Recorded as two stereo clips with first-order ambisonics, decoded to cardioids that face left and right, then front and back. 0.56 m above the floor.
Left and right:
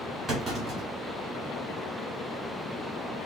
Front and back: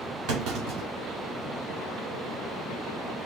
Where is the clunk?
170° right, 1.8 m.